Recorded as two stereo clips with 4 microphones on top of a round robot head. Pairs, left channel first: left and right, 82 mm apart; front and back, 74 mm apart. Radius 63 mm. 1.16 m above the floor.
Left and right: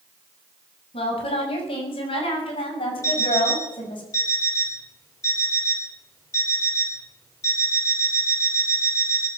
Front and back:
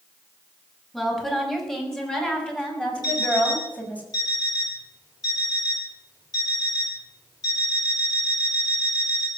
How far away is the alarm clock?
About 9.5 m.